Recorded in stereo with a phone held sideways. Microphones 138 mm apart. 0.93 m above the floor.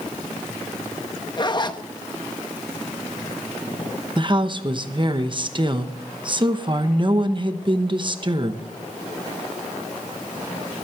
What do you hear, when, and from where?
1.4 s a zipper: 30° left (ahead or behind), 0.8 m
4.2 s a woman speaking: 35° right (ahead or behind), 0.9 m